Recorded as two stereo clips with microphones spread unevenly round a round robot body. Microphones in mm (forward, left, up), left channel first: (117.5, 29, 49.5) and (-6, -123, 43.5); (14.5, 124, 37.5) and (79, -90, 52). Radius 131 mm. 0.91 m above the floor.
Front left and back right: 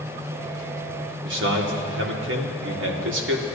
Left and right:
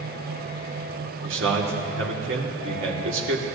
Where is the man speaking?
115° right, 2 m.